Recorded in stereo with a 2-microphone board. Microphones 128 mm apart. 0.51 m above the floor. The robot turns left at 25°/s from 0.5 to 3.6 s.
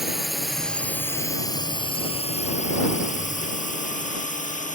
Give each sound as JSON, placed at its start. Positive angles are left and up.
{"t": 0.0, "sound": "a drone", "side_deg": 0}